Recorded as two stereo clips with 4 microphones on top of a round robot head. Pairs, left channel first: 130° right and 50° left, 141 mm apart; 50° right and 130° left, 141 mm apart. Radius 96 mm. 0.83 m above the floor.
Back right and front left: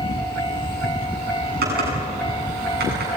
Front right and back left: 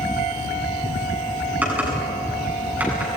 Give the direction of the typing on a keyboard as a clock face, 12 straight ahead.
10 o'clock.